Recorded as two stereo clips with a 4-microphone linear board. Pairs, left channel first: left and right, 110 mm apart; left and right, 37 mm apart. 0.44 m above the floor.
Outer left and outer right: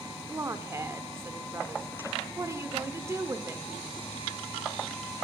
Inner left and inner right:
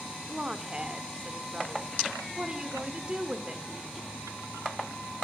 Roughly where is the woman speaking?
Right.